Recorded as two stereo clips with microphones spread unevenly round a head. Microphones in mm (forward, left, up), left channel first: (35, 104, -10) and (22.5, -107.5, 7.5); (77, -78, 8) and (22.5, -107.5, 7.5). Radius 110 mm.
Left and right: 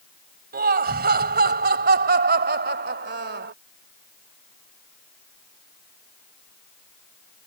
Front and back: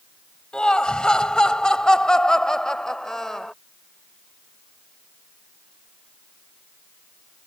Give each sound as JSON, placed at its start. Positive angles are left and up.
{"t": 0.5, "sound": "laughter", "azimuth_deg": -50}